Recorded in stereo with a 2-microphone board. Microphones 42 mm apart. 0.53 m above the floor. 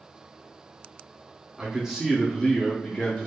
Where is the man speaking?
20° right (ahead or behind), 0.7 m; by 3.3 s 25° left (ahead or behind), 0.8 m.